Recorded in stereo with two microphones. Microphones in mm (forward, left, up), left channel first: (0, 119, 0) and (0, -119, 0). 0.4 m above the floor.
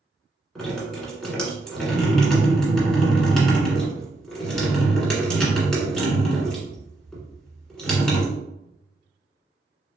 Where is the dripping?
5° left (ahead or behind), 1.4 m.